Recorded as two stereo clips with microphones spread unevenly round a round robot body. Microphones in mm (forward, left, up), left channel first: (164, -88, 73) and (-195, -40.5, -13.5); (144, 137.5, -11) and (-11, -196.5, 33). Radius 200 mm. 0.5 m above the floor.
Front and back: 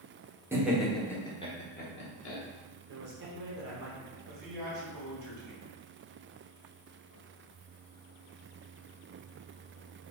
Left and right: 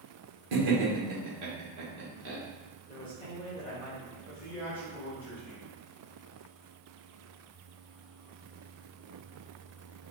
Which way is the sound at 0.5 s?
115° right.